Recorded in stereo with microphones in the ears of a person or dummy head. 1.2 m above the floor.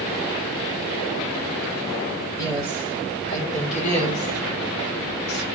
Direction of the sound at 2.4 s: 25° left (ahead or behind).